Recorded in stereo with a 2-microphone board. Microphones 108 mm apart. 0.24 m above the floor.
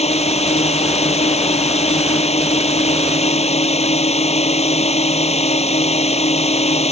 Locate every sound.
0.0 s a drone: 75° left (ahead or behind)